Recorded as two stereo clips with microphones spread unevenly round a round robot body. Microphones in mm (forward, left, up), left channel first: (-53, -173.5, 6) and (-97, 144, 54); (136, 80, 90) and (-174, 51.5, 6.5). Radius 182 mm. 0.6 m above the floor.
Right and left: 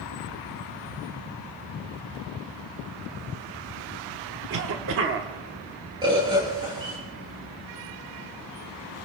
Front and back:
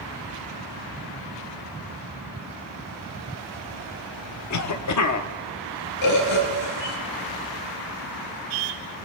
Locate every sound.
4.5 s a cough: 45° left, 1.1 m
6.0 s a bird: 20° left, 4 m